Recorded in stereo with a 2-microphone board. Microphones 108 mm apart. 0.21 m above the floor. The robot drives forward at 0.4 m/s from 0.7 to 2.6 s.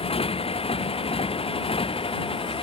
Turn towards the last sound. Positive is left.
turn(degrees=60)  # may be behind; listen again after turning